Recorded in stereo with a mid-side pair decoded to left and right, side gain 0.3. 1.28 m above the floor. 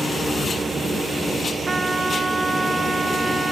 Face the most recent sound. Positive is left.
turn(degrees=-40)